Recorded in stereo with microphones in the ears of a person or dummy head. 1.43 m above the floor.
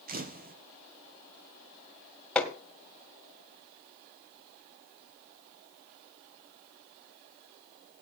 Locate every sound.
0.1 s a camera shutter: 45° right (ahead or behind), 1.0 m
2.4 s hammering: 5° left (ahead or behind), 1.9 m